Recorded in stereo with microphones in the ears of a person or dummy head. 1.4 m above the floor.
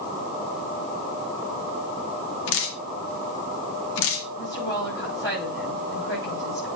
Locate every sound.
2.5 s dripping: 60° left (ahead or behind), 1.5 m
4.4 s a woman speaking: 15° left (ahead or behind), 5.5 m